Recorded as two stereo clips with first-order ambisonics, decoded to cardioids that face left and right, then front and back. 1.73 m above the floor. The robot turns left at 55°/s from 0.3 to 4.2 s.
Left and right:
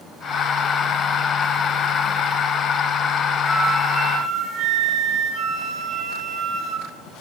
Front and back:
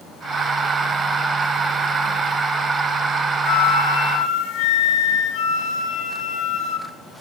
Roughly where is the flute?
Ahead.